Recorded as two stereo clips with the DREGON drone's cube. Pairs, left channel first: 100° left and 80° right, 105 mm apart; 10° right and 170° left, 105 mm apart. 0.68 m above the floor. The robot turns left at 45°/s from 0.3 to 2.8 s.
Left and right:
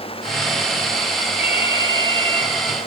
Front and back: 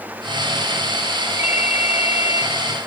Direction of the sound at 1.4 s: 5° right.